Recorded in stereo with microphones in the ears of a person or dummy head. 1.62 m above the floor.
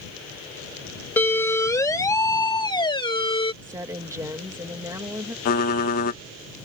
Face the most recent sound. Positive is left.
turn(degrees=50)  # may be behind; listen again after turning